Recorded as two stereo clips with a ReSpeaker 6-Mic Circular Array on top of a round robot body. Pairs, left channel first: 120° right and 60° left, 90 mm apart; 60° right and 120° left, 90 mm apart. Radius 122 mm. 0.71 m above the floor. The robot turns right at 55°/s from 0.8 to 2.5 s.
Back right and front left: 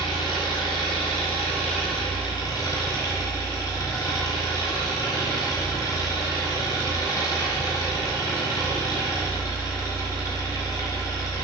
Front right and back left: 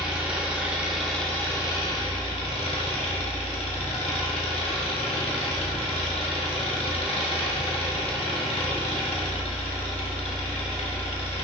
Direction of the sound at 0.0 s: 160° right.